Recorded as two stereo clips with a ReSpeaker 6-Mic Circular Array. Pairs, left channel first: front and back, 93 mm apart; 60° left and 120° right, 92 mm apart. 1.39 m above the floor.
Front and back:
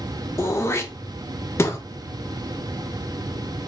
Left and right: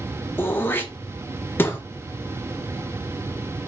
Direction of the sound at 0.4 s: 20° left.